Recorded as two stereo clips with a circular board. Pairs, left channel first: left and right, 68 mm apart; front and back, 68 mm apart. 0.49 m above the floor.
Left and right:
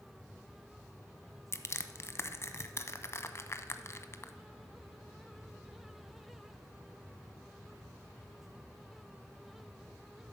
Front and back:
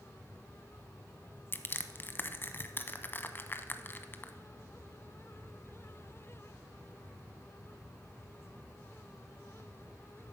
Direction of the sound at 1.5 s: 50° left.